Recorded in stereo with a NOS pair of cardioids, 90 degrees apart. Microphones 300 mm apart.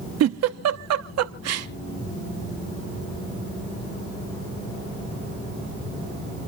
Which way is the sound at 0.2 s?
60° right.